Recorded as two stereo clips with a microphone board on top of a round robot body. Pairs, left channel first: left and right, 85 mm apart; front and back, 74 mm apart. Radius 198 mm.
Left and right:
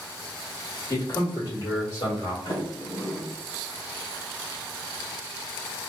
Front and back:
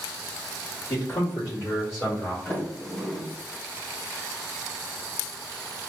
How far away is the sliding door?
About 2 m.